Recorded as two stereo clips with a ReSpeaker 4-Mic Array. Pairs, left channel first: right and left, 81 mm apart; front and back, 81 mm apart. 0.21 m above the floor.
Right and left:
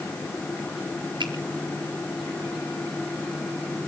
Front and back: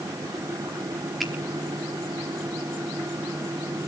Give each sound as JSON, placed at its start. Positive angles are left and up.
{"t": 1.2, "sound": "a finger snap", "azimuth_deg": 95, "distance_m": 4.5}